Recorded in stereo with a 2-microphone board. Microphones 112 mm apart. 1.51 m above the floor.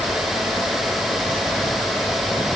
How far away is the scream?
I don't hear a scream.